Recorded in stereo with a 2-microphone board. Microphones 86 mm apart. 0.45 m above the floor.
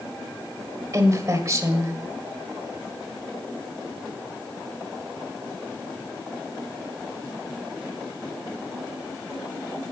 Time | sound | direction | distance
0.9 | a woman speaking | 35° right (ahead or behind) | 1.7 m